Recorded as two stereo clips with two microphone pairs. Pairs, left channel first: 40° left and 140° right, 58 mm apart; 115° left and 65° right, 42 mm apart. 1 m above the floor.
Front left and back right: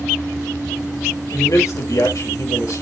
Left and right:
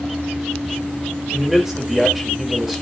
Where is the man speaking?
20° left, 3.5 m.